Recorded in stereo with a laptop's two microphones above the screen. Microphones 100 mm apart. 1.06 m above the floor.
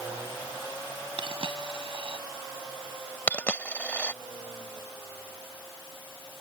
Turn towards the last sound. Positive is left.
turn(degrees=15)  # may be behind; listen again after turning